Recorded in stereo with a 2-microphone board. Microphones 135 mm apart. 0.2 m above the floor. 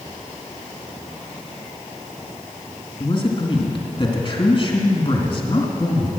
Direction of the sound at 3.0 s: 40° left (ahead or behind).